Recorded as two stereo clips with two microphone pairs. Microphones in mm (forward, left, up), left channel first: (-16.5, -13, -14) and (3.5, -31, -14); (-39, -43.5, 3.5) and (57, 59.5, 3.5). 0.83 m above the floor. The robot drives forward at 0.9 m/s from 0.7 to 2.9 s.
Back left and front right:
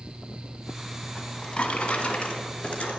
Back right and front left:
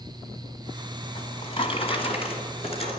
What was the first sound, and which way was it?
A drawer, 175° right.